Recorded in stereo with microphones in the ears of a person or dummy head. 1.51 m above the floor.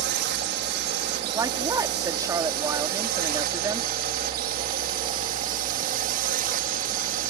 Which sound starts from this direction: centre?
A woman speaking, at 1.3 s.